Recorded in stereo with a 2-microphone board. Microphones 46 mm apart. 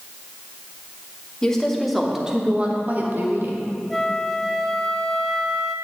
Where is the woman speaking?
15° left (ahead or behind), 1.7 m; by 3.6 s 65° right (ahead or behind), 1.7 m.